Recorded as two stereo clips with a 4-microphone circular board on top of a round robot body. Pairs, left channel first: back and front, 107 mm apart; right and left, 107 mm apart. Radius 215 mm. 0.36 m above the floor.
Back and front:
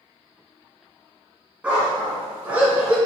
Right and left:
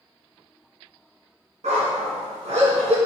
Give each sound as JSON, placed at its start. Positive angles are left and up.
{"t": 1.6, "sound": "a dog barking", "azimuth_deg": 75, "distance_m": 1.9}